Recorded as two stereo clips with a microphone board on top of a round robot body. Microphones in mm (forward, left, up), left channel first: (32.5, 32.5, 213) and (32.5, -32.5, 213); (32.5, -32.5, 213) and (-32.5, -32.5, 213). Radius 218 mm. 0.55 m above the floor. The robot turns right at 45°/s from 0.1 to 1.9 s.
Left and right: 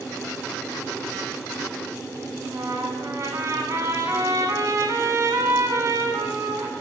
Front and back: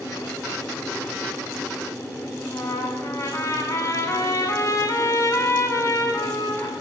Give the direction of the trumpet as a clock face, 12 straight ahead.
2 o'clock.